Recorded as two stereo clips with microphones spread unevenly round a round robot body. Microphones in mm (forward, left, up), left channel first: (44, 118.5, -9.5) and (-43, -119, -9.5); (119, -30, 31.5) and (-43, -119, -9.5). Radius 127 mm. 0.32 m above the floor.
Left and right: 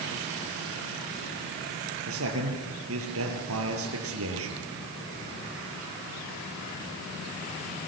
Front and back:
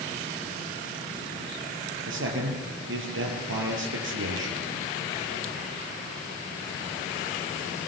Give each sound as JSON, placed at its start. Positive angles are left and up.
{"t": 2.1, "sound": "a man speaking", "azimuth_deg": -145, "distance_m": 6.0}